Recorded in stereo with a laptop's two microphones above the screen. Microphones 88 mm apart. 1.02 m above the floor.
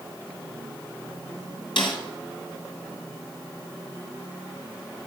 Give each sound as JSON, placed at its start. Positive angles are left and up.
{"t": 1.8, "sound": "a snare drum", "side_deg": 70, "distance_m": 2.0}